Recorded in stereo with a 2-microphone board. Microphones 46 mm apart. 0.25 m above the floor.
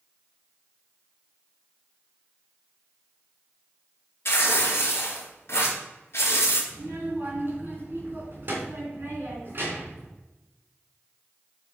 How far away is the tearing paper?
About 3 m.